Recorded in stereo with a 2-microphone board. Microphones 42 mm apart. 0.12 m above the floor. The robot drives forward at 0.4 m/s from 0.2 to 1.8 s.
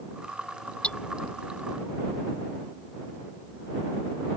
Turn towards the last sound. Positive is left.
turn(degrees=25)  # may be behind; listen again after turning